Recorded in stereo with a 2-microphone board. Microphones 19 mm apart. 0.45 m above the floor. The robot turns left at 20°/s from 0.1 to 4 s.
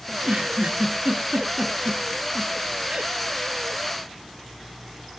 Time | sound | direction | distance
0.1 | a giggle | 85° right | 2.5 m